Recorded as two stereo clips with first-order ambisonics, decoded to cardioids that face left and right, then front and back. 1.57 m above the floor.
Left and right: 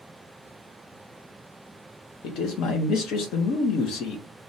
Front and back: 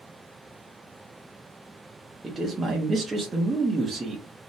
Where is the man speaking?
105° left, 0.6 m.